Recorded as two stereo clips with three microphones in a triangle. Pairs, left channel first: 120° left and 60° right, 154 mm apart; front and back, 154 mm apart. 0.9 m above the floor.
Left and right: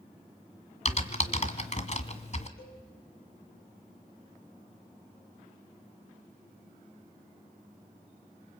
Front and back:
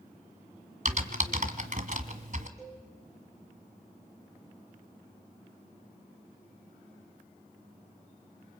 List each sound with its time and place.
0.8 s typing on a keyboard: 155° left, 1.6 m
2.6 s a cowbell: 110° left, 8 m